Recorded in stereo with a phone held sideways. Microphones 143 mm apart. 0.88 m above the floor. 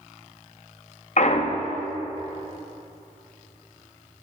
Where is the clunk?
55° left (ahead or behind), 0.7 m.